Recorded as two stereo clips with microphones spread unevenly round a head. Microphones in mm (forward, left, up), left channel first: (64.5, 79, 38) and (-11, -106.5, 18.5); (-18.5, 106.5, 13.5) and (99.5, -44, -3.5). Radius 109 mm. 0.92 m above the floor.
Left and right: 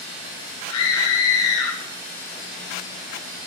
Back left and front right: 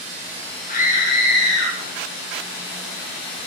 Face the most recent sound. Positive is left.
turn(degrees=105)